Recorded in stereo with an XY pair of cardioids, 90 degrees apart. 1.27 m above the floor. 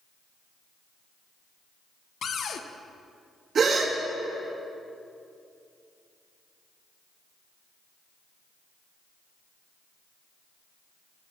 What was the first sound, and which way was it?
A cupboard door, 65° left.